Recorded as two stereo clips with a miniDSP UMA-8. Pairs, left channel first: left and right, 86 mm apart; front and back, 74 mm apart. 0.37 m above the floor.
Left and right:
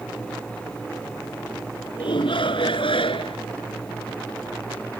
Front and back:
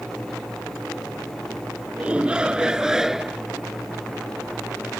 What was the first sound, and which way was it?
A shout, 105° left.